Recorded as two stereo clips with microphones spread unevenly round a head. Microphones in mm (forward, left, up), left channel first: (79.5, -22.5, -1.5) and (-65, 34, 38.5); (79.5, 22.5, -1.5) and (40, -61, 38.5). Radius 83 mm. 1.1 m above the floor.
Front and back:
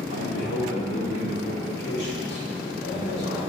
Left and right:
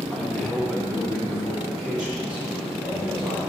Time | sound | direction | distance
0.1 | a man speaking | 15° right | 1.5 m